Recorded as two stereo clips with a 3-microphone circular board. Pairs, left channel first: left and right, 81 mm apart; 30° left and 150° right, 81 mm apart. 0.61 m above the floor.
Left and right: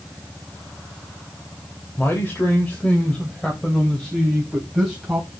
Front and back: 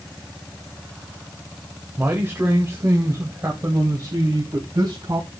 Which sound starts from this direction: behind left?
A man speaking, at 2.0 s.